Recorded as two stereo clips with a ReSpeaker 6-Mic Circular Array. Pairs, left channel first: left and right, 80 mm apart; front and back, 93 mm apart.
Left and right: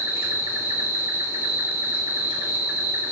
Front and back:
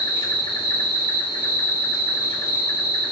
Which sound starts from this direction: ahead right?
An insect, at 0.0 s.